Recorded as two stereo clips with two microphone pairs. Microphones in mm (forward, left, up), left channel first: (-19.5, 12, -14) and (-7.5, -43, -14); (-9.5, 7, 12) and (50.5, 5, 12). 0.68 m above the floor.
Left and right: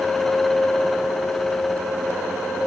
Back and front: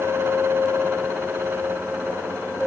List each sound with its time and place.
Only background noise.